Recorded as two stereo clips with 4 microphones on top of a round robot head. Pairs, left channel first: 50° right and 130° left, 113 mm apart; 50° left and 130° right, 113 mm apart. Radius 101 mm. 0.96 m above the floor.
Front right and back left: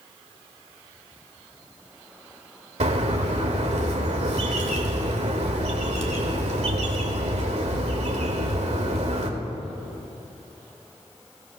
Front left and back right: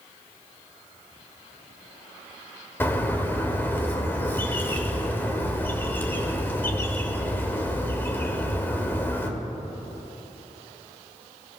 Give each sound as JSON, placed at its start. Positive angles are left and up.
{"t": 2.8, "sound": "a bird", "azimuth_deg": 120, "distance_m": 1.8}